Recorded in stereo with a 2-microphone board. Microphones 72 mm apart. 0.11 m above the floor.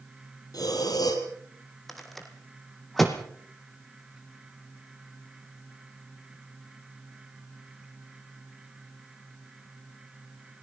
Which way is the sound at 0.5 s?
65° left (ahead or behind).